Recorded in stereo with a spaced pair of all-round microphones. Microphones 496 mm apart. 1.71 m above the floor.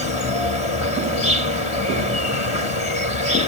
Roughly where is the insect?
Left.